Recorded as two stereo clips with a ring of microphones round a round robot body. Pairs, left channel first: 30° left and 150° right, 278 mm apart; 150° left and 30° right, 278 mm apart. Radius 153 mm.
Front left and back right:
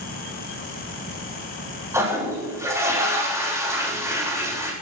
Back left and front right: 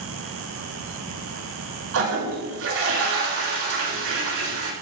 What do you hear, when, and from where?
1.9 s a toilet flushing: 70° right, 8.5 m